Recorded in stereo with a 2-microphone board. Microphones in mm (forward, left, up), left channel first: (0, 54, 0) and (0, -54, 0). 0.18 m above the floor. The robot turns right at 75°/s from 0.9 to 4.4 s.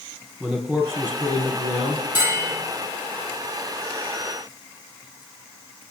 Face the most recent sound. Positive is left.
turn(degrees=5)